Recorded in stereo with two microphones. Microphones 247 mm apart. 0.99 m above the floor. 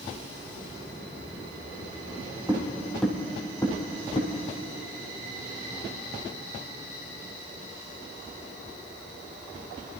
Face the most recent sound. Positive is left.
turn(degrees=25)  # may be behind; listen again after turning